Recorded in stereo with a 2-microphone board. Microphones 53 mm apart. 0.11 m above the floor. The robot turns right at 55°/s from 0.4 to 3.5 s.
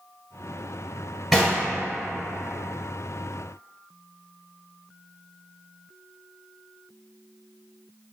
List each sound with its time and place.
1.3 s knocking: 5° right (ahead or behind), 1.8 m; by 1.6 s 15° right (ahead or behind), 1.8 m